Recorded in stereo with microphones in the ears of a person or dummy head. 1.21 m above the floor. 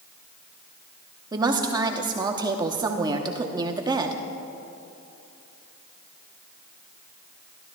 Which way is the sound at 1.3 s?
15° right (ahead or behind).